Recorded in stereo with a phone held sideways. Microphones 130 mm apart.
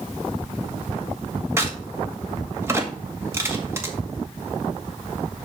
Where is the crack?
20° right (ahead or behind), 1.8 m.